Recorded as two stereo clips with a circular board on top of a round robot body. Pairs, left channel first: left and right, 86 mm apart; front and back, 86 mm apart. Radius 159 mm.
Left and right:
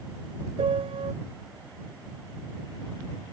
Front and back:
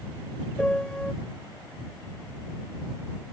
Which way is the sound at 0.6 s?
80° right.